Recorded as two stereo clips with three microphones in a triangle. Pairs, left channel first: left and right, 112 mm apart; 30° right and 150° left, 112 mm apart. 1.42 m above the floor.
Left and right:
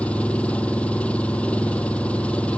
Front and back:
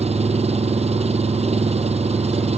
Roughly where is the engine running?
Behind.